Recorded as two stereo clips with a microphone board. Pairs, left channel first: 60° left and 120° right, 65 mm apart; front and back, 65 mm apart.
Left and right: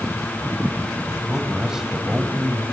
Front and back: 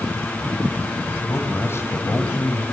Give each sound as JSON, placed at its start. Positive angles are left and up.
{"t": 1.1, "sound": "a man speaking", "azimuth_deg": -40, "distance_m": 2.5}